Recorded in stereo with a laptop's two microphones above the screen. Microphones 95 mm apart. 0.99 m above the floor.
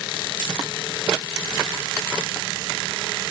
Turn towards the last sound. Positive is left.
No sound to turn to.